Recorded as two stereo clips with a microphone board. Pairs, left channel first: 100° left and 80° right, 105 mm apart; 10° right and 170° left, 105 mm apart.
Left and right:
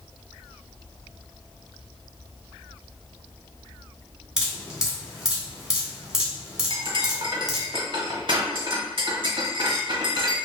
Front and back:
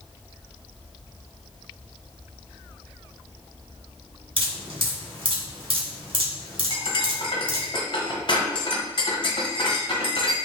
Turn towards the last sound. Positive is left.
turn(degrees=-45)